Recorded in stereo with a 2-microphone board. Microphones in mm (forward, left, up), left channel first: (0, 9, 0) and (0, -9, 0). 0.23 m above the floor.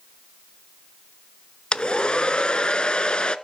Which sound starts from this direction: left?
A hair dryer, at 1.7 s.